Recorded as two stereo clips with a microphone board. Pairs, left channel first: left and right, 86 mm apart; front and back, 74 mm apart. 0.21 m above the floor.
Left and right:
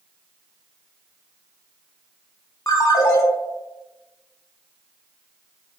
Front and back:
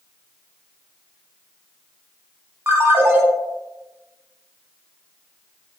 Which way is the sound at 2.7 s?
135° left.